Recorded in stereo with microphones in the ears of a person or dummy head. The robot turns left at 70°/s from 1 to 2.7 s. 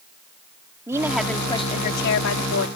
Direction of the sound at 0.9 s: 170° right.